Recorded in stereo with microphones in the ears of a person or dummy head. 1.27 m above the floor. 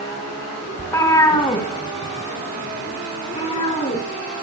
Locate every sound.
0.8 s a cat meowing: 15° left (ahead or behind), 1.4 m; by 4.0 s 30° left (ahead or behind), 5.5 m